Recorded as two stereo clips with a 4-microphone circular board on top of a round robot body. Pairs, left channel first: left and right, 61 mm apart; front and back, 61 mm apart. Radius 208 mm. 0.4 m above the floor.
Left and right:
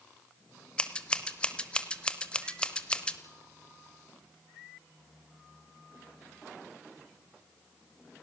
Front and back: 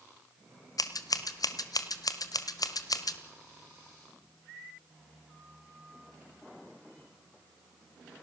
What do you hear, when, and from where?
0.8 s scissors: 15° left, 1.2 m